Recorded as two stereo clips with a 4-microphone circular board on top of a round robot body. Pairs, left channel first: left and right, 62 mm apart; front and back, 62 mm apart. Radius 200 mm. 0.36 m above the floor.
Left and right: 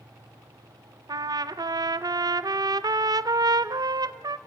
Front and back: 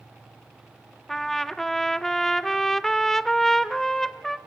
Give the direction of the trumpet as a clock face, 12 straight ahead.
3 o'clock.